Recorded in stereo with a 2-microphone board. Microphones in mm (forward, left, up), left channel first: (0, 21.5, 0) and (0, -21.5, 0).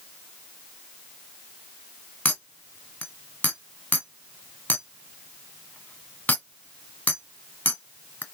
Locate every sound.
2.2 s a clink: 40° left (ahead or behind), 1.4 m